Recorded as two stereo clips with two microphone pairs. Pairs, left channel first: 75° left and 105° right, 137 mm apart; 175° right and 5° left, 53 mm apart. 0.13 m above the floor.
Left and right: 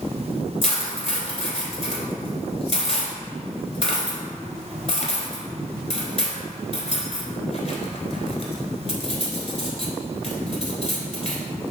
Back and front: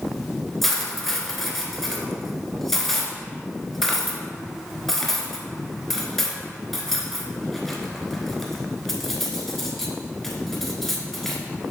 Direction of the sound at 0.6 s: 100° left.